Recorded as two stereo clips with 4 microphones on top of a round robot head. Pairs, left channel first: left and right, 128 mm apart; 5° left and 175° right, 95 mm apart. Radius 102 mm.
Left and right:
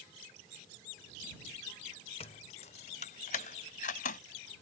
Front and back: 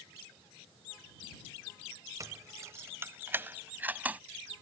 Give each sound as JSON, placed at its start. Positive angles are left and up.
{"t": 2.2, "sound": "keys jangling", "azimuth_deg": 135}